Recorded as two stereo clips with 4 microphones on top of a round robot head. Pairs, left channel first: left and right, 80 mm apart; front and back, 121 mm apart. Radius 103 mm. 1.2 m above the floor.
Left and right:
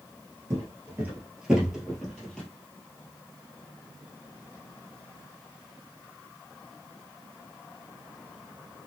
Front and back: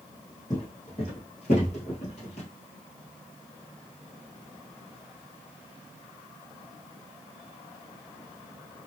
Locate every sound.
0.5 s footsteps: 60° right, 1.3 m; by 2.5 s 15° left, 1.7 m